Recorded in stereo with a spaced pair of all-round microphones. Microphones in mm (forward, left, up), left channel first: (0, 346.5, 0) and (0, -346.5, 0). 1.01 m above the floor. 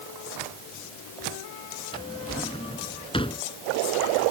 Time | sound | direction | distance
1.9 | a drawer | 5° left (ahead or behind) | ?